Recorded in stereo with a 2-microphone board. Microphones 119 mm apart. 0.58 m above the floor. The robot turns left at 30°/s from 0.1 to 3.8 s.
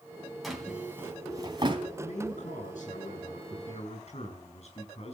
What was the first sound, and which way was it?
A drawer, centre (ahead or behind).